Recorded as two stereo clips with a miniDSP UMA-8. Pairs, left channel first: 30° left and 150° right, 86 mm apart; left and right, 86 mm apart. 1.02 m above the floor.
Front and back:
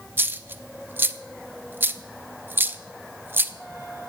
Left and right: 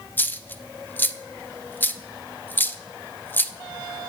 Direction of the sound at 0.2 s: 150° left.